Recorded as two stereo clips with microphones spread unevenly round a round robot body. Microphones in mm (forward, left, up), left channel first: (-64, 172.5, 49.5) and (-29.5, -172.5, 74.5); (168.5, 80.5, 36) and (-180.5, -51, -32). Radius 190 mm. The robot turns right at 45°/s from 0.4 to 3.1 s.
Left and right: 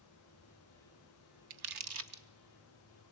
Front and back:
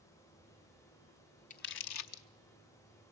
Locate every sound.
1.5 s crumpling: 50° right, 0.7 m; by 2.2 s 15° right, 0.7 m